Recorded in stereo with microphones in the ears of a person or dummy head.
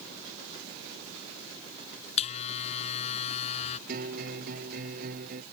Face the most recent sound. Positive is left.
turn(degrees=-50)  # may be behind; listen again after turning